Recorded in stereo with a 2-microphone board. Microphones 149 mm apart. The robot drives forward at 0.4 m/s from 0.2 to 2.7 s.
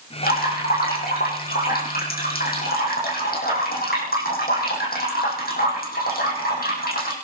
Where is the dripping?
80° left, 6.5 m; by 7.2 s 85° left, 6.5 m.